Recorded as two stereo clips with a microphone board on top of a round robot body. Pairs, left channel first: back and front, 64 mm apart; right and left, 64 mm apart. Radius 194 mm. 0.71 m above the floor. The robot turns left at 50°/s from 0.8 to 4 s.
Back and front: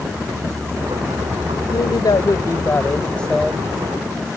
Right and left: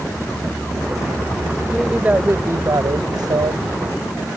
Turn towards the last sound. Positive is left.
turn(degrees=65)